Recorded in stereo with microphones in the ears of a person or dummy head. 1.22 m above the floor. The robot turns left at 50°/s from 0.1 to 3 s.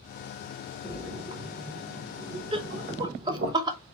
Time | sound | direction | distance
0.8 | a splash | 20° right (ahead or behind) | 0.6 m
2.5 | laughter | 25° right (ahead or behind) | 0.5 m